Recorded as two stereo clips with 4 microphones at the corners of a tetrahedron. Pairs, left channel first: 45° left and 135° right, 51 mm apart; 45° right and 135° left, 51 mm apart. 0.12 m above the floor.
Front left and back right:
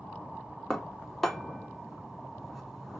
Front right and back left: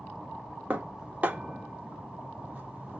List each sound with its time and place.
0.7 s dishes clattering: 130° left, 0.8 m